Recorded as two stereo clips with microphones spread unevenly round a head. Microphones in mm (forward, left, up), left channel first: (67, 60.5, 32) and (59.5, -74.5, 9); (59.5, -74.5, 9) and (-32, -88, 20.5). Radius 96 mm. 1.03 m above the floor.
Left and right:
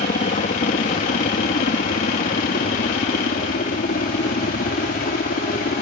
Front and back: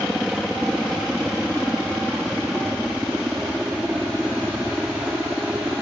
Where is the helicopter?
100° left; by 5.8 s 105° left.